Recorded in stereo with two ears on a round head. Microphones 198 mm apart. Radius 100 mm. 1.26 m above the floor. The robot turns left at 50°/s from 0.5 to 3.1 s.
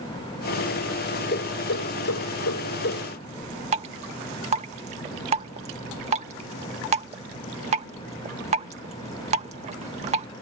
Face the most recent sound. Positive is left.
turn(degrees=-30)  # may be behind; listen again after turning